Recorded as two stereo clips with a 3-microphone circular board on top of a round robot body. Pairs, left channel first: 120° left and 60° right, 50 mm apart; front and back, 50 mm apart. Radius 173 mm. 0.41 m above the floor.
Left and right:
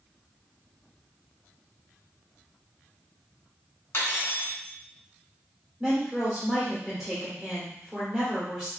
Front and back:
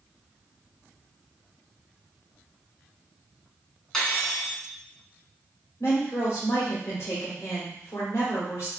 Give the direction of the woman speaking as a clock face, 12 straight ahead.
11 o'clock.